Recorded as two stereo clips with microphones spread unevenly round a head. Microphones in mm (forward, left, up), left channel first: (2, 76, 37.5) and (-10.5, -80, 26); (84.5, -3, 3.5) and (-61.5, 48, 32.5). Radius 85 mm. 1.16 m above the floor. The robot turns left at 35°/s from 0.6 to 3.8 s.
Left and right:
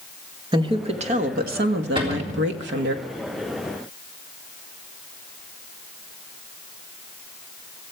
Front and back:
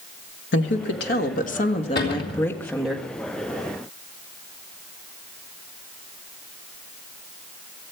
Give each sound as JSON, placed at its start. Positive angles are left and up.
{"t": 0.5, "sound": "a woman speaking", "azimuth_deg": -30, "distance_m": 1.4}
{"t": 1.9, "sound": "a cupboard door", "azimuth_deg": -35, "distance_m": 3.5}